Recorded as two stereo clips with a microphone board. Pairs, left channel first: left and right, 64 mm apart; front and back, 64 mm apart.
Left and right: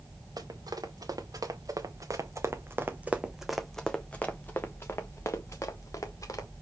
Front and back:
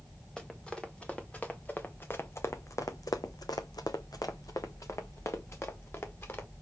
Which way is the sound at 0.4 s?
80° right.